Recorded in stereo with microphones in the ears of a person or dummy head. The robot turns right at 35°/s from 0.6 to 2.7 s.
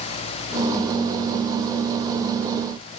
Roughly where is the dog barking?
I don't hear a dog barking.